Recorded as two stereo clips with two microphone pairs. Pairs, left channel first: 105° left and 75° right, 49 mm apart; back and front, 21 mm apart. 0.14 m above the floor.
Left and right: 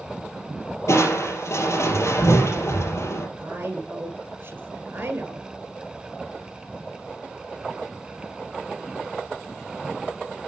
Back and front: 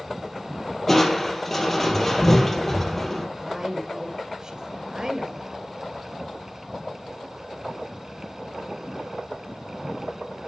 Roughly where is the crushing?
Left.